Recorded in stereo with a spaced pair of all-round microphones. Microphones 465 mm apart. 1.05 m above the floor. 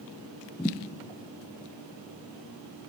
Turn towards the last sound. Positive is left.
turn(degrees=5)  # may be behind; listen again after turning